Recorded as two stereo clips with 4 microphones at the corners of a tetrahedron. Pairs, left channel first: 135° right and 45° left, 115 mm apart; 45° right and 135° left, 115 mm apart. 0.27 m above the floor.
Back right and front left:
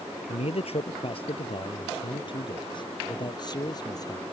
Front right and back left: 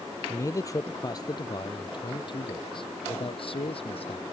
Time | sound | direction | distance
0.3 | a man speaking | 110° right | ?